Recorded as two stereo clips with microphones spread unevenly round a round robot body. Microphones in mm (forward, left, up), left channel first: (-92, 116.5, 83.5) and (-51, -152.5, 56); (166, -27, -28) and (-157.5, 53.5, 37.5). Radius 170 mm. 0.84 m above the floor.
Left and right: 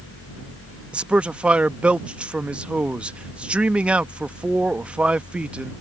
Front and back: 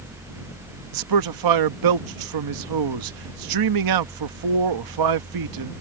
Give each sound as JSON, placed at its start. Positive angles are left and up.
{"t": 0.9, "sound": "a man speaking", "azimuth_deg": -165}